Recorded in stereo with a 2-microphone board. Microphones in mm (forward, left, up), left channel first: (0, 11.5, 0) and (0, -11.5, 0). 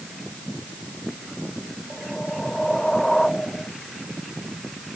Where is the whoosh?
25° left (ahead or behind).